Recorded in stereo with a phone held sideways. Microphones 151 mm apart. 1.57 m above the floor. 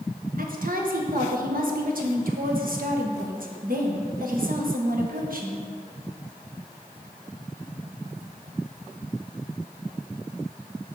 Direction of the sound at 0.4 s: 70° right (ahead or behind).